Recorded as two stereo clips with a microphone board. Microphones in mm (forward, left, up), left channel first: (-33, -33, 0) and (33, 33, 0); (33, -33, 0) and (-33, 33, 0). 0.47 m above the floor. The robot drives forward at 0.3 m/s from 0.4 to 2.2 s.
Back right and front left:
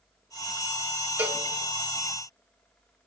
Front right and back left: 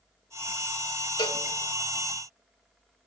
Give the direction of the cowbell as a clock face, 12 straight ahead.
1 o'clock.